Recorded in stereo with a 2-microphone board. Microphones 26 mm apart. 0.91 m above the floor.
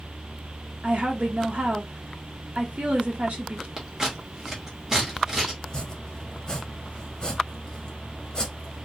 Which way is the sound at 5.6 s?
30° left (ahead or behind).